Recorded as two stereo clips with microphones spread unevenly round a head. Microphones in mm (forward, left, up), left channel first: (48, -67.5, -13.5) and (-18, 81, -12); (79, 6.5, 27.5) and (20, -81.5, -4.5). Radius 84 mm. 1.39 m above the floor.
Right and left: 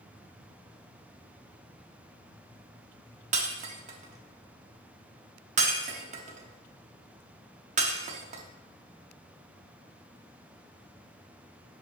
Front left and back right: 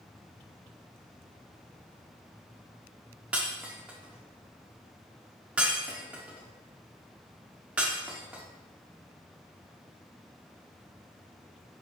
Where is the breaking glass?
140° left, 1.1 m.